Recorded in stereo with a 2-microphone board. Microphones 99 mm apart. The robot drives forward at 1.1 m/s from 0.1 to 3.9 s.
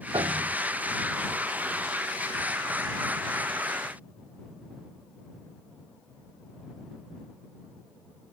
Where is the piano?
55° right (ahead or behind); by 0.6 s 65° right (ahead or behind).